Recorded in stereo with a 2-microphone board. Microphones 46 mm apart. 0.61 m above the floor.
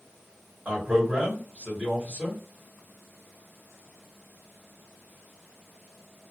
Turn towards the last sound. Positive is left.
turn(degrees=-25)  # may be behind; listen again after turning